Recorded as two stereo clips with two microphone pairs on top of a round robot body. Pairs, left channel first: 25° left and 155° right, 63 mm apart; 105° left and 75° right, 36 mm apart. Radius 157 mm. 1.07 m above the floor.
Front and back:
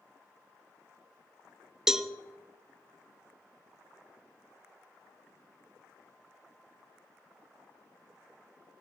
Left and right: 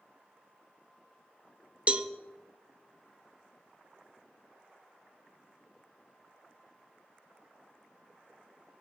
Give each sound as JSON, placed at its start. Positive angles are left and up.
{"t": 1.9, "sound": "a cowbell", "azimuth_deg": -80, "distance_m": 0.7}